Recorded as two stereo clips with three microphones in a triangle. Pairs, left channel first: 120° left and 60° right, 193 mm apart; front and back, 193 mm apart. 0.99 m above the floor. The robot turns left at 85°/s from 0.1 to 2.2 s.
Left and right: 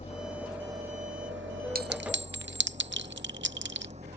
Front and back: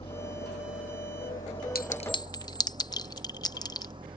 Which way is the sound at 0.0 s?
65° left.